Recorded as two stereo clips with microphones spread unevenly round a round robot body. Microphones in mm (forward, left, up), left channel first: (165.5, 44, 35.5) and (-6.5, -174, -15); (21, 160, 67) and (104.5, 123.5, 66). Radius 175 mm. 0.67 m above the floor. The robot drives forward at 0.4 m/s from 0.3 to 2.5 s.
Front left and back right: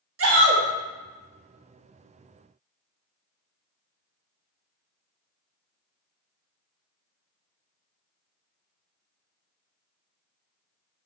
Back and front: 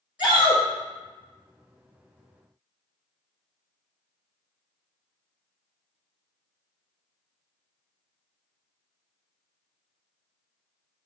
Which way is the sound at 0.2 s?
105° right.